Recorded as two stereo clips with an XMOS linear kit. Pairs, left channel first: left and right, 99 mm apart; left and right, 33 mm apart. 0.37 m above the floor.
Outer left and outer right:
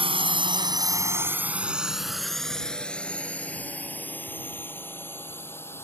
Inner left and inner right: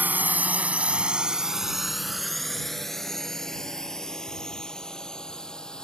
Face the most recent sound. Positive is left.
turn(degrees=25)  # may be behind; listen again after turning